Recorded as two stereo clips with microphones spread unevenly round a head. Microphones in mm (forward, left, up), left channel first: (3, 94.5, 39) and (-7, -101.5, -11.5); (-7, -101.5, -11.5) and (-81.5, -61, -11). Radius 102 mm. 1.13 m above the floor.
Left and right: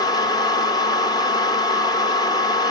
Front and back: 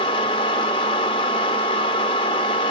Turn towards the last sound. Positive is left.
turn(degrees=20)